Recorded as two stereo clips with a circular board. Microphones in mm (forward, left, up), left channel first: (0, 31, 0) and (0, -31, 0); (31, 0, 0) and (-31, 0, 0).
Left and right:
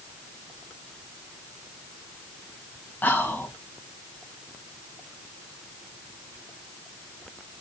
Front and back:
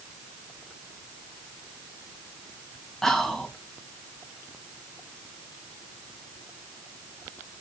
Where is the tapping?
No tapping in this recording.